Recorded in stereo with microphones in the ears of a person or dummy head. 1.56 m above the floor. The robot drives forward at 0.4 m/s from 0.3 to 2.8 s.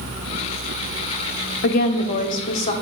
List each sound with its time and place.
1.6 s a woman speaking: 65° left (ahead or behind), 0.6 m; by 2.7 s 40° left (ahead or behind), 0.9 m